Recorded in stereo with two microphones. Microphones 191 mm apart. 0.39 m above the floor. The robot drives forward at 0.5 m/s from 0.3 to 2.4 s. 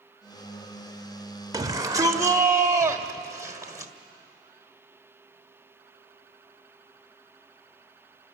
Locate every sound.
1.5 s a shout: 20° right (ahead or behind), 1.3 m; by 3.9 s 15° right (ahead or behind), 1.5 m